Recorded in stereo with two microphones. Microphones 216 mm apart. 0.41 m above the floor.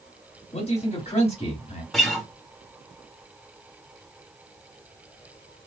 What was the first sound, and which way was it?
A man speaking, 30° left (ahead or behind).